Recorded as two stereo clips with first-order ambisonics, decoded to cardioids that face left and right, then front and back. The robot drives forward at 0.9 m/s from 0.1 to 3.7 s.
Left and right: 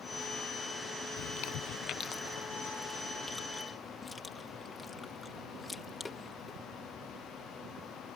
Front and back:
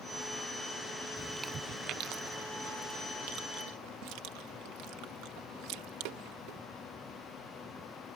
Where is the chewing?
70° left; by 6.6 s 170° left.